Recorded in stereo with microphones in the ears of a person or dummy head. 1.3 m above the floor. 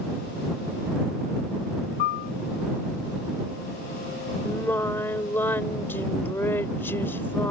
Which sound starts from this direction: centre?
Singing, at 4.5 s.